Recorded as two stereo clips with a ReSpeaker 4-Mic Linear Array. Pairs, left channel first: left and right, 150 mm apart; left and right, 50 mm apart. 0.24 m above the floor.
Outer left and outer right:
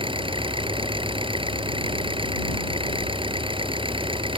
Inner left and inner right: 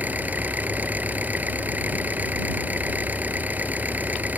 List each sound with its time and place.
0.0 s an engine running: 35° right (ahead or behind)